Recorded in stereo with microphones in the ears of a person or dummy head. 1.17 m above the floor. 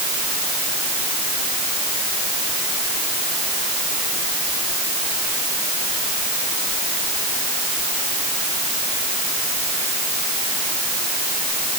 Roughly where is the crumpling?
I don't hear crumpling.